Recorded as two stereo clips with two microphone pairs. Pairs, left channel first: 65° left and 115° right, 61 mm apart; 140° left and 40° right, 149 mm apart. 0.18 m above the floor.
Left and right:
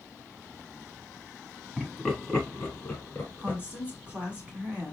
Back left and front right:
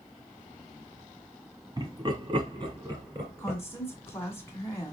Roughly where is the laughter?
Ahead right.